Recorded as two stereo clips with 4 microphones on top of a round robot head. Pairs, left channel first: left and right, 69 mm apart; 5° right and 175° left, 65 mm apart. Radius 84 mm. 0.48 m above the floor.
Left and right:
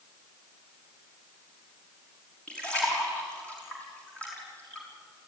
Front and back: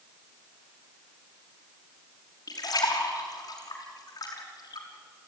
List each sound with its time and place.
2.5 s a splash: 15° left, 5.5 m